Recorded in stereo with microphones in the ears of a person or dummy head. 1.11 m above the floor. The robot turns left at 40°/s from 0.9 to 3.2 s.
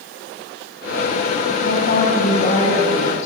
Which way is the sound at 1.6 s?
70° left.